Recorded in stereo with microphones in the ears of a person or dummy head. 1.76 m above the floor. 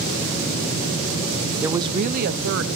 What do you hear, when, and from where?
1.6 s a woman speaking: 5° right (ahead or behind), 0.9 m; by 2.7 s 65° right (ahead or behind), 1.5 m